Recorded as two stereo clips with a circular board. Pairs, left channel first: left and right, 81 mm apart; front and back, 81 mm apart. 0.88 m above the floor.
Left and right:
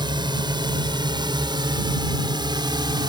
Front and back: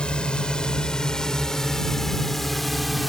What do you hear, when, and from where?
0.0 s a drone: 80° right; by 3.1 s 90° right